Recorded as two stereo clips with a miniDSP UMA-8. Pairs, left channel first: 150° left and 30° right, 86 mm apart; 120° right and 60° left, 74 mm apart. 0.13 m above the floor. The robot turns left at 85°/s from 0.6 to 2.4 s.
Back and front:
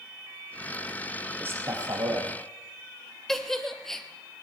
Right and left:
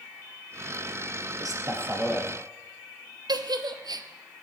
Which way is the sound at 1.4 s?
40° left.